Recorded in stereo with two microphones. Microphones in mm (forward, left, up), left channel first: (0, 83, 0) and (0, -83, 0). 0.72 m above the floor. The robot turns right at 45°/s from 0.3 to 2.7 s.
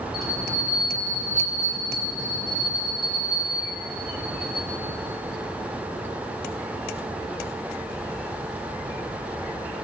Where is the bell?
Straight ahead, 3.5 m; by 4.7 s 105° left, 3.5 m.